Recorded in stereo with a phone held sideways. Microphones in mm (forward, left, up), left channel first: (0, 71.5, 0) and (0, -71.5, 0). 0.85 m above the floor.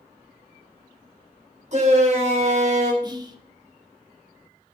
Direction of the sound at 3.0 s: 25° right (ahead or behind).